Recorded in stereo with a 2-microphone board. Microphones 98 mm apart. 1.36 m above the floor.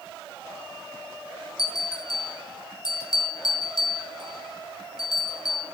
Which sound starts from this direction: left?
A bell, at 1.6 s.